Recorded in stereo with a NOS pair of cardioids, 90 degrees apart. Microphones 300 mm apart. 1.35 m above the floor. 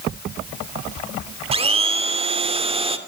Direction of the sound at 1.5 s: 20° right.